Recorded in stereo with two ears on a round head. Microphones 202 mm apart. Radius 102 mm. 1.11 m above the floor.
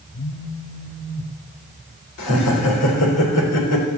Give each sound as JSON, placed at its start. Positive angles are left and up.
{"t": 0.1, "sound": "a phone buzzing", "side_deg": 50, "distance_m": 1.0}
{"t": 2.2, "sound": "laughter", "side_deg": 75, "distance_m": 3.5}